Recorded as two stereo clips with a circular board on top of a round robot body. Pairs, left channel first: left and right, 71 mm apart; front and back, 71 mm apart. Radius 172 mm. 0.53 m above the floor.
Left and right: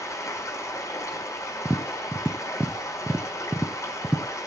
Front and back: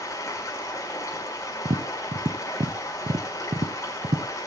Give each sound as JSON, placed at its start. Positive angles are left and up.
{"t": 0.0, "sound": "running water", "azimuth_deg": 45, "distance_m": 4.5}
{"t": 1.6, "sound": "tapping", "azimuth_deg": -160, "distance_m": 1.0}